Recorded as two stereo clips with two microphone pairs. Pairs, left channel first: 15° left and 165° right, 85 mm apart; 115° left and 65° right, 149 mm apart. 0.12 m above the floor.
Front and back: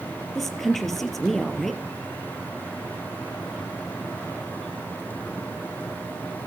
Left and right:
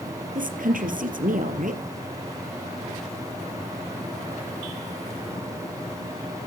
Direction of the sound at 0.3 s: 70° right.